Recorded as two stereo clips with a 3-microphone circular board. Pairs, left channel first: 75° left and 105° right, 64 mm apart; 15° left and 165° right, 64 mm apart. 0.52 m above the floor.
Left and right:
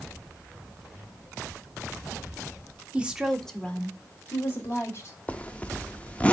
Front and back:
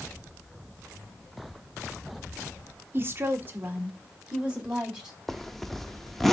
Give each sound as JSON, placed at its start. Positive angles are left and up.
{"t": 2.9, "sound": "a woman speaking", "azimuth_deg": -160, "distance_m": 1.2}
{"t": 5.3, "sound": "a zipper", "azimuth_deg": 100, "distance_m": 0.6}